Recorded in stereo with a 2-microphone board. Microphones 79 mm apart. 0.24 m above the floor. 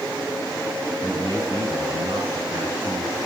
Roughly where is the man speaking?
Right.